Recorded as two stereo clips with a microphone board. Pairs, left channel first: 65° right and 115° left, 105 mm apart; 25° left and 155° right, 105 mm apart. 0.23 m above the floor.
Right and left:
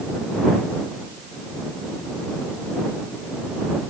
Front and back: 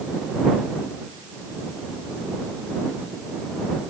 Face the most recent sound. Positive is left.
No sound to turn to.